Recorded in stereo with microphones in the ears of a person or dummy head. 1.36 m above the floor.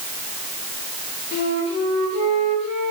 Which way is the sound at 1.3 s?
40° left (ahead or behind).